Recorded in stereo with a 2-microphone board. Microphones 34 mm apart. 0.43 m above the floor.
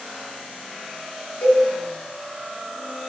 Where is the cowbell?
85° left, 1.6 m.